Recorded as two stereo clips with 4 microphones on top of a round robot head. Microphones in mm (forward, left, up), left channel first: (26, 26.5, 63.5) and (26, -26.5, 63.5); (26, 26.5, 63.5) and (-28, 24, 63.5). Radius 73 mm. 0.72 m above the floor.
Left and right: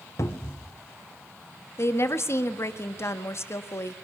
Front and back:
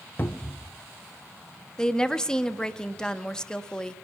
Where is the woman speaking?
75° left, 1.3 m.